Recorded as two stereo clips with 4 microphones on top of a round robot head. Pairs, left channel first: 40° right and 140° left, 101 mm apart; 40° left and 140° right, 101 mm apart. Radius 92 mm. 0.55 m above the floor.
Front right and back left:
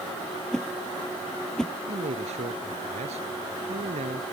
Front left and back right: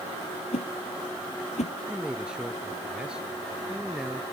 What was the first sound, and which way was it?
A whoosh, 40° left.